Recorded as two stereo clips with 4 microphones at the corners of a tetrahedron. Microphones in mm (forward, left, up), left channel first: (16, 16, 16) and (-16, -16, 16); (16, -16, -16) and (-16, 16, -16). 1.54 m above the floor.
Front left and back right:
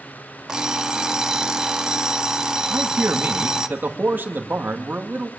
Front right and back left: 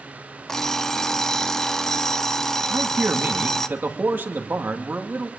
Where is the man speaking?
Straight behind, 2 m.